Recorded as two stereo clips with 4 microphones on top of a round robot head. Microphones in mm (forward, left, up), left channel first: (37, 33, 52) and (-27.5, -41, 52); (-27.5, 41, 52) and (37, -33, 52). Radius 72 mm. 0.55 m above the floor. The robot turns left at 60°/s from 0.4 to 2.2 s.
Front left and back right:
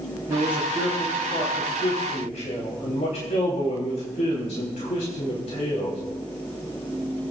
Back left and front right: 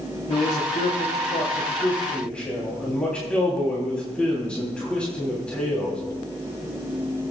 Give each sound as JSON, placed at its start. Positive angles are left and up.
{"t": 0.3, "sound": "a man speaking", "azimuth_deg": 160, "distance_m": 3.5}